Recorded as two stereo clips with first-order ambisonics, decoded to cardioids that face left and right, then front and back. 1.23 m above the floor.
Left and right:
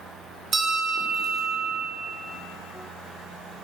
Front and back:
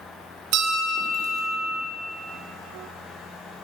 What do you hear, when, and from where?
0.5 s a bell: 160° right, 2.5 m